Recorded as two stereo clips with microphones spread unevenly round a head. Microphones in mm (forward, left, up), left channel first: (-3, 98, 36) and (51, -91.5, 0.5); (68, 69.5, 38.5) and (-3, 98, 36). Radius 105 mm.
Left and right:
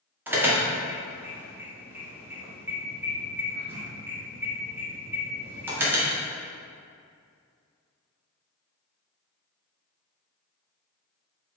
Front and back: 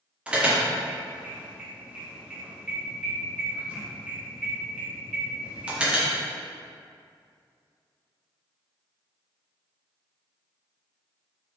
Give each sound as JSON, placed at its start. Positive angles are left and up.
{"t": 0.3, "sound": "an alarm", "azimuth_deg": -135, "distance_m": 1.3}